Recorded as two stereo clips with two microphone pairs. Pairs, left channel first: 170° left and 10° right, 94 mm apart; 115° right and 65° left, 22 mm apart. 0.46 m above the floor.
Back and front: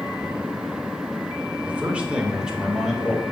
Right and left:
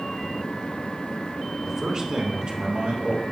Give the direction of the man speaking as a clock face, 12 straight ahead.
10 o'clock.